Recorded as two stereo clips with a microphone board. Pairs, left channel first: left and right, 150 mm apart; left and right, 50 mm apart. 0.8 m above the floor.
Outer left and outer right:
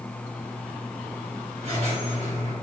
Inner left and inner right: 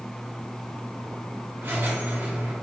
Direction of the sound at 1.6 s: 50° right (ahead or behind).